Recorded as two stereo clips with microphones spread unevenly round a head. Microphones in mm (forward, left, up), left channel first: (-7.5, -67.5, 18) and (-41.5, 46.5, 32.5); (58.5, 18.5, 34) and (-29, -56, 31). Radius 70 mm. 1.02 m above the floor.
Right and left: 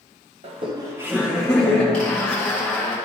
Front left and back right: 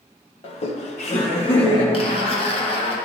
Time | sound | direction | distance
0.4 | laughter | 70° left | 1.0 m
1.9 | a zipper | 5° left | 1.1 m